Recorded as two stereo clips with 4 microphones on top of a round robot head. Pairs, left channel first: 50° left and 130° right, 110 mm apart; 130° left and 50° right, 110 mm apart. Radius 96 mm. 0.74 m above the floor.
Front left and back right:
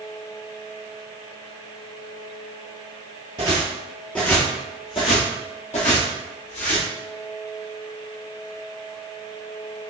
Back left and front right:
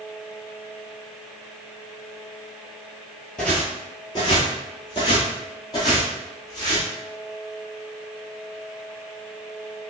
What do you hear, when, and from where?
3.4 s footsteps: 155° right, 0.8 m; by 6.9 s 70° left, 1.8 m